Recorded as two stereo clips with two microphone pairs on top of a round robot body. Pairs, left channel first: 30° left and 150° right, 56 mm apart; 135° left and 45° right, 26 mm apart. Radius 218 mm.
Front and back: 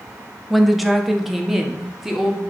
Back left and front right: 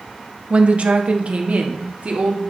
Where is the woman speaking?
60° right, 1.5 m; by 2.4 s 65° right, 2.5 m.